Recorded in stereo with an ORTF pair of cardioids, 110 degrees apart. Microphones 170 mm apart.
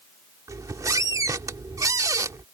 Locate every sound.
0.5 s a squeak: 20° right